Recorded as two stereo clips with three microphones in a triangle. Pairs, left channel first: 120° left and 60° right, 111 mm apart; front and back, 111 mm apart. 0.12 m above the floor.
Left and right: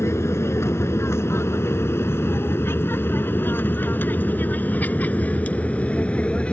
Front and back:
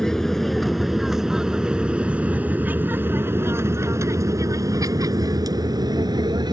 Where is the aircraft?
80° left; by 6.5 s 165° right.